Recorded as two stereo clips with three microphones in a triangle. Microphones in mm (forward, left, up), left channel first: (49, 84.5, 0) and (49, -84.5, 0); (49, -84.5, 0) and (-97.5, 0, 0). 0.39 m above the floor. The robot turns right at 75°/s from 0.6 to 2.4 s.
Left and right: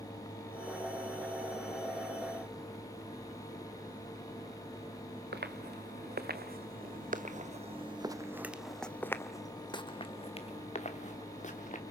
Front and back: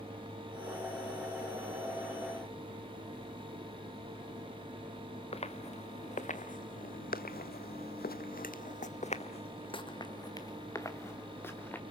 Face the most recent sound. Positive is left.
turn(degrees=50)